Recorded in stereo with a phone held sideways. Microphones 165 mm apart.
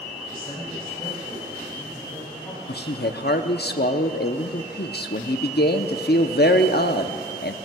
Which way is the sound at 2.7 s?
70° left (ahead or behind).